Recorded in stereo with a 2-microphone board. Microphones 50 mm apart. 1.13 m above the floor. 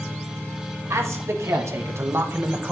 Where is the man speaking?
80° right, 1.9 m; by 2.7 s 25° right (ahead or behind), 1.1 m.